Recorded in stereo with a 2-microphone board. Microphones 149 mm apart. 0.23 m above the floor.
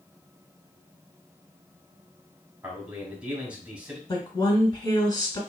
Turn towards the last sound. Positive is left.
turn(degrees=30)  # may be behind; listen again after turning